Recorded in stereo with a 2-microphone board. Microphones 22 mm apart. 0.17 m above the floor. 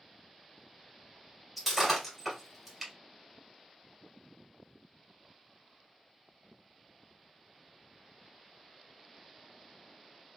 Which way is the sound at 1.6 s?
5° right (ahead or behind).